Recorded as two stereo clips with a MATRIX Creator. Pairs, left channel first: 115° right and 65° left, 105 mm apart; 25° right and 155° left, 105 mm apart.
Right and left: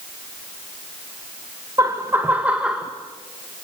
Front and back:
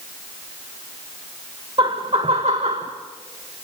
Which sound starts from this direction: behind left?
Laughter, at 1.8 s.